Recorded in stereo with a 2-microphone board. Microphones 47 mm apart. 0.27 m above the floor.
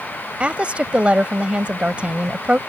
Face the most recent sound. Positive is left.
turn(degrees=-30)  # may be behind; listen again after turning